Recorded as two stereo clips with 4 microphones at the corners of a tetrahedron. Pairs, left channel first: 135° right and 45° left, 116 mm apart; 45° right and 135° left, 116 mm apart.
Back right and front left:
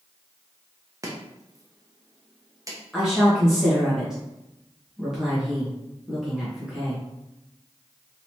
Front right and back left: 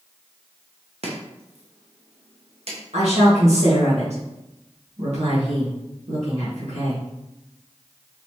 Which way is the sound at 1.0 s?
105° left.